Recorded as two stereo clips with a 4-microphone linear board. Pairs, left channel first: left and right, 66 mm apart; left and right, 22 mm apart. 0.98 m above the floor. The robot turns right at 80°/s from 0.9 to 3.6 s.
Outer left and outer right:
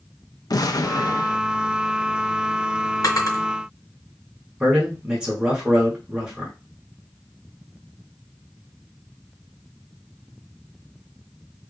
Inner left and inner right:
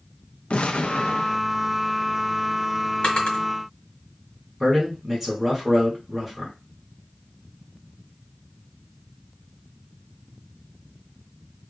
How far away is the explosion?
About 0.5 m.